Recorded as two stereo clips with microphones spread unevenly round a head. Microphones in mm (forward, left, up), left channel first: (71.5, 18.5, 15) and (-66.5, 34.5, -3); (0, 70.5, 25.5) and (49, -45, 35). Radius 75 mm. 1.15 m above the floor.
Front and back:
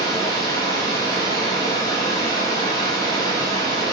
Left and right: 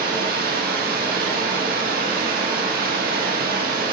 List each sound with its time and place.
0.0 s running water: 75° right, 1.4 m